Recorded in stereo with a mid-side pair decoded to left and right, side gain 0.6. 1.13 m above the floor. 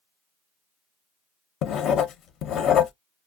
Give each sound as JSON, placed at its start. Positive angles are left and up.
{"t": 1.6, "sound": "writing", "azimuth_deg": 55, "distance_m": 0.6}